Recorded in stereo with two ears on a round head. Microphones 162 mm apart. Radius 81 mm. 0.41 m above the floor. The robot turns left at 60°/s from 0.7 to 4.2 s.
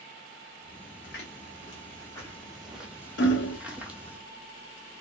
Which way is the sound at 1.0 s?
65° left (ahead or behind).